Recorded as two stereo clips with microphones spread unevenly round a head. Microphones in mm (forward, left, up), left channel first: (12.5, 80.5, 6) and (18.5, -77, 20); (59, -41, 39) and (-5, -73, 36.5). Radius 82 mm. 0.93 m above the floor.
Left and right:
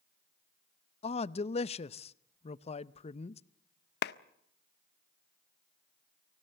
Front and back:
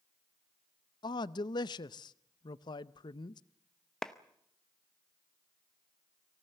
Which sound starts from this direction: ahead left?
A man speaking, at 1.0 s.